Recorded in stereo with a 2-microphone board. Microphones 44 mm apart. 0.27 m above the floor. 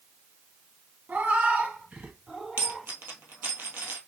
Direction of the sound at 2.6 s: 55° right (ahead or behind).